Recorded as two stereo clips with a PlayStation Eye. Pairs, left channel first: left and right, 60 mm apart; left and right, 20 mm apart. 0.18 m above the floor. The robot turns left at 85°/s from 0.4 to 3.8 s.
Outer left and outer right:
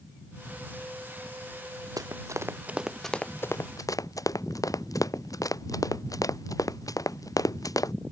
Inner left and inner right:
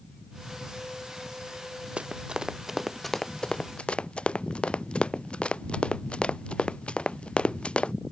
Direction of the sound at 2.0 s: 85° right.